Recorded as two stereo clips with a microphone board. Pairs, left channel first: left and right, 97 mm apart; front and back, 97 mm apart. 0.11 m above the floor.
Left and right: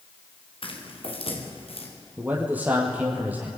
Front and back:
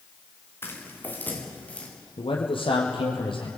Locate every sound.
0.6 s footsteps: 65° left, 6.5 m; by 1.9 s 75° left, 7.5 m
2.2 s a man speaking: 15° right, 4 m